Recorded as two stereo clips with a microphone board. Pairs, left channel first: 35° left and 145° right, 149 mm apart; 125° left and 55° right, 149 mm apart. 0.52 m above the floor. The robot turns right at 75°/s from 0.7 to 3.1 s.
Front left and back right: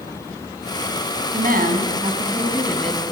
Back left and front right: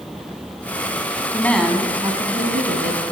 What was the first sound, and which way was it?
A woman speaking, 165° right.